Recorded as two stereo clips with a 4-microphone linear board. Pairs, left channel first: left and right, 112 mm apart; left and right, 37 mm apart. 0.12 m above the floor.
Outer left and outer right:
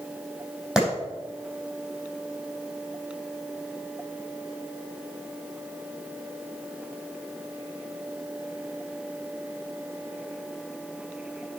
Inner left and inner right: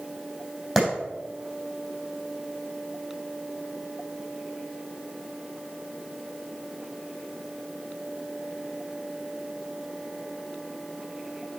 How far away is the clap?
About 4.5 m.